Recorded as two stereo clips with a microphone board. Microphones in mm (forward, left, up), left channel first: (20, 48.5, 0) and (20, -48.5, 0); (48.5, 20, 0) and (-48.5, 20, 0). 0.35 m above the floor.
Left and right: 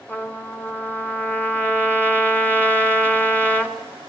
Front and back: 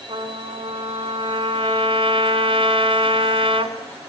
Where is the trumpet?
165° left, 2.5 m.